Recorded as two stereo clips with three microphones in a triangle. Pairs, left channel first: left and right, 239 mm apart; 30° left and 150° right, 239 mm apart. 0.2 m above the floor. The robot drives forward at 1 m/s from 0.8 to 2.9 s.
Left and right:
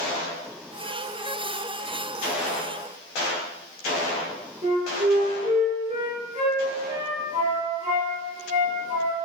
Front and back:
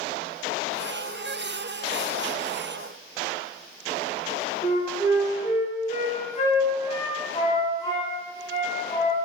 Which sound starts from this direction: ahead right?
A flute, at 4.6 s.